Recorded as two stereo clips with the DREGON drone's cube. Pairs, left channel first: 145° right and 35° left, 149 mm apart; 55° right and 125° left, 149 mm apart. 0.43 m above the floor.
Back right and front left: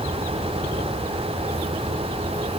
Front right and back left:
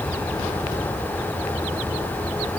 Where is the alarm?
No alarm in this recording.